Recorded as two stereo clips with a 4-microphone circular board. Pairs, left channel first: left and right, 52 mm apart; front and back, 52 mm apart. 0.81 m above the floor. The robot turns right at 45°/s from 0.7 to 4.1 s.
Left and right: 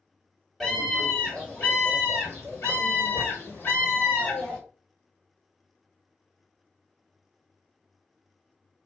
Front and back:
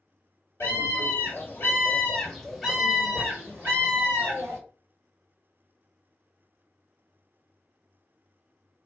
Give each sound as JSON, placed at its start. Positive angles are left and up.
{"t": 0.6, "sound": "a scream", "azimuth_deg": 5, "distance_m": 2.5}